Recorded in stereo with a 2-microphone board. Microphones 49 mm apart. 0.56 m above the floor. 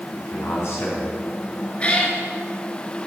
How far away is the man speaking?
About 4.5 m.